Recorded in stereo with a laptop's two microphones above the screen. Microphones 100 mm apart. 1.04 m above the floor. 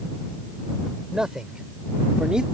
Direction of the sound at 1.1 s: 5° right (ahead or behind).